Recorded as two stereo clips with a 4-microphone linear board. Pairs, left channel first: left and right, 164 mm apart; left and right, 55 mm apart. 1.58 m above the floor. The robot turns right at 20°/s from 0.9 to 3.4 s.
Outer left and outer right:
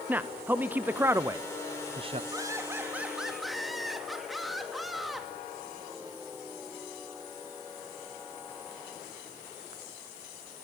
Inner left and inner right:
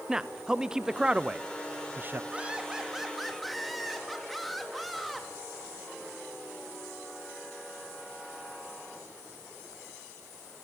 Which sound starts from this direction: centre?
A man speaking, at 0.1 s.